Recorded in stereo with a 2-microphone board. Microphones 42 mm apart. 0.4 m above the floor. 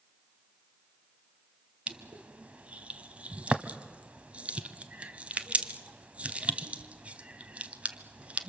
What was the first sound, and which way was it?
Crushing, 35° right (ahead or behind).